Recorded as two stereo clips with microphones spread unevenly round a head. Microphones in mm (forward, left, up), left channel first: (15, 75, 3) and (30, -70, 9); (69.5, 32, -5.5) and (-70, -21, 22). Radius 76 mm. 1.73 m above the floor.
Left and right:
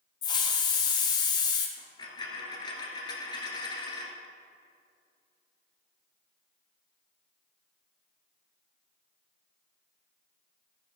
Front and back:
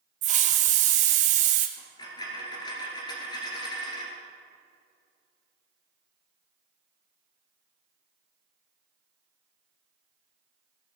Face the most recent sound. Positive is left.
turn(degrees=75)